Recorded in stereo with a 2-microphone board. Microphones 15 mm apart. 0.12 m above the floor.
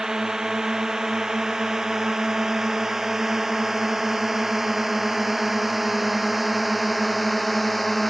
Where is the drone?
40° right (ahead or behind); by 8.1 s 5° left (ahead or behind).